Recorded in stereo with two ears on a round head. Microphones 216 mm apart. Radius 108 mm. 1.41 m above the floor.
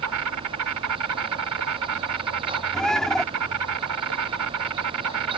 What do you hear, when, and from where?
0.0 s an insect: 75° right (ahead or behind)
2.7 s a bird: centre (ahead or behind)